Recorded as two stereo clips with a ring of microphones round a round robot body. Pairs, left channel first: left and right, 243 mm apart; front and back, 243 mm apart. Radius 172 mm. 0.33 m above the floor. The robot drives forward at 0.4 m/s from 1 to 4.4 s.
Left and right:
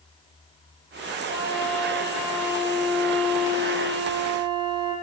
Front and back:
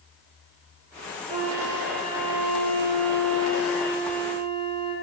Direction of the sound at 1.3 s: 175° left.